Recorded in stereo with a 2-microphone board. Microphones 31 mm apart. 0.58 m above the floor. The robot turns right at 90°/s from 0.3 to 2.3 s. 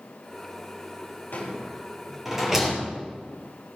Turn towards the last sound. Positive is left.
turn(degrees=-15)  # may be behind; listen again after turning